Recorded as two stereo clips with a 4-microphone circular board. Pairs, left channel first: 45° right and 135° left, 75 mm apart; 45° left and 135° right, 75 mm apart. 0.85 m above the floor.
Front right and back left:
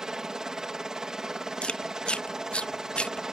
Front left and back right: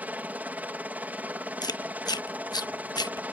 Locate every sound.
0.0 s a helicopter: 155° right
1.6 s chewing: 30° left